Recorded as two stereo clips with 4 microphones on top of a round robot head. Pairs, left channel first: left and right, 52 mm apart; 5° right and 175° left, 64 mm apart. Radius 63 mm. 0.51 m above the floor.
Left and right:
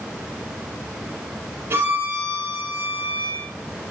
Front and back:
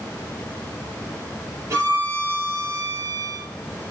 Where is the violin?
135° right, 5 m.